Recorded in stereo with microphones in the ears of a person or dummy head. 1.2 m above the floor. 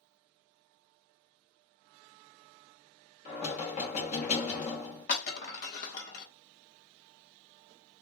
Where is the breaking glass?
50° left (ahead or behind), 1.4 m.